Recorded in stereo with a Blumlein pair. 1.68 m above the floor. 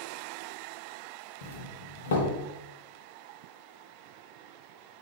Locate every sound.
1.4 s a doorbell: 60° left, 1.4 m